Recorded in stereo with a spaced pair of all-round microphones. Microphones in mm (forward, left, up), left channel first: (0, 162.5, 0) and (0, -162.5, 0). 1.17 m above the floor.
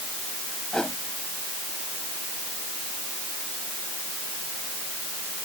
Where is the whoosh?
Centre (ahead or behind).